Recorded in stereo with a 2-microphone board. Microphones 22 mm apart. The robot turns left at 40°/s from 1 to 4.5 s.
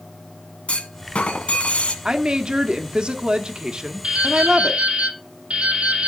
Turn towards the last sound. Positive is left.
turn(degrees=-65)  # may be behind; listen again after turning